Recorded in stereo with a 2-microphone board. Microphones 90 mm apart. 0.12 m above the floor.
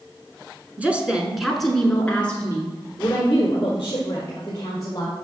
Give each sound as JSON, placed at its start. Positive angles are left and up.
{"t": 0.8, "sound": "a woman speaking", "side_deg": -15, "distance_m": 1.1}